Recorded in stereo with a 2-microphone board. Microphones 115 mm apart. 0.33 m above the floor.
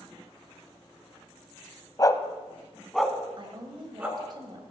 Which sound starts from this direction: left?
A dog barking, at 2.0 s.